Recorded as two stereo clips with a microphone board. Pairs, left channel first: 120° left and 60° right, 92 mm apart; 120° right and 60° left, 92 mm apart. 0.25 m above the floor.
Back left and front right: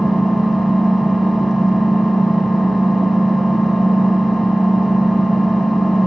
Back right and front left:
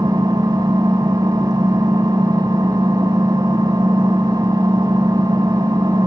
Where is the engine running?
30° left, 1.9 m.